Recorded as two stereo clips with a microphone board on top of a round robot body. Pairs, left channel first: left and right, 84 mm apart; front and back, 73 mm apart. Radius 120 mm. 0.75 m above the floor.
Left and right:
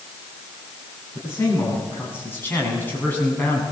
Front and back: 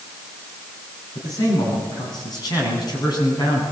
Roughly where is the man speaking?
Ahead left.